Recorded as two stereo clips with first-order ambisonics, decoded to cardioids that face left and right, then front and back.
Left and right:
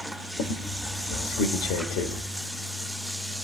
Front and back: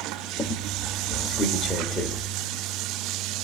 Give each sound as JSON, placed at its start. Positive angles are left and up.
{"t": 0.4, "sound": "a squeak", "azimuth_deg": 75, "distance_m": 1.6}